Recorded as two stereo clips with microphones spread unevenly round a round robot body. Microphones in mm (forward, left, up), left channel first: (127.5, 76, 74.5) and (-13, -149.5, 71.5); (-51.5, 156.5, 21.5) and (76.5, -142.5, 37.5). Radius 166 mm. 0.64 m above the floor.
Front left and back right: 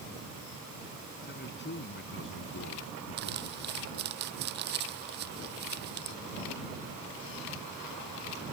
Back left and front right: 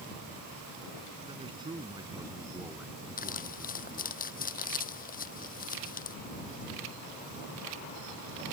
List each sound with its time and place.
1.2 s a man speaking: 10° left; by 4.2 s 30° left
3.2 s crumpling: straight behind